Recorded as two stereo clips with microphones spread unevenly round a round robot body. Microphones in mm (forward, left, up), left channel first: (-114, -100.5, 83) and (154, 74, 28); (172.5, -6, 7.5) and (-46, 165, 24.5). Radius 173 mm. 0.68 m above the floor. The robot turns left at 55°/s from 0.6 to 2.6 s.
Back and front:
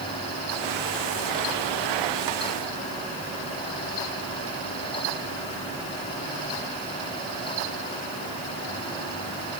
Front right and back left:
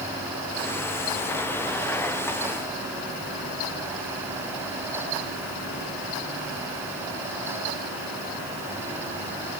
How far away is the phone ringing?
I don't hear a phone ringing.